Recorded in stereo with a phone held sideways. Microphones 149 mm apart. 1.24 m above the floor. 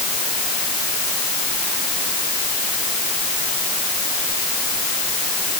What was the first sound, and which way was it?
Only background noise.